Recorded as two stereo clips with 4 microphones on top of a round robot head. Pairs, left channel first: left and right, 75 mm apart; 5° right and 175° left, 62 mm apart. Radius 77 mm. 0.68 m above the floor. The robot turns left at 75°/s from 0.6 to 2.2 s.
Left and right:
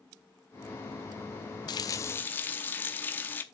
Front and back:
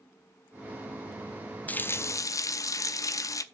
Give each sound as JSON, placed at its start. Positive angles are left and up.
{"t": 1.7, "sound": "a running tap", "azimuth_deg": 65, "distance_m": 0.6}